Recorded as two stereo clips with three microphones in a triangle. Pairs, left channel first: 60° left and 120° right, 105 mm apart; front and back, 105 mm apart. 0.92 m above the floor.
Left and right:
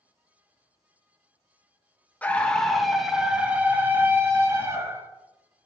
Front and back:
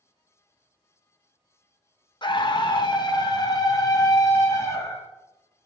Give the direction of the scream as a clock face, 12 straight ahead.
12 o'clock.